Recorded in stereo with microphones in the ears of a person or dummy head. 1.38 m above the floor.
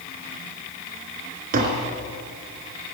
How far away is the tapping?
About 3 m.